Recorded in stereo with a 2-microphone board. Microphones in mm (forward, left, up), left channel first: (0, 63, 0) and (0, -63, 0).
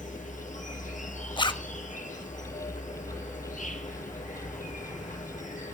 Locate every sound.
0.0 s an insect: 90° left, 1.6 m
1.4 s a zipper: 40° left (ahead or behind), 0.6 m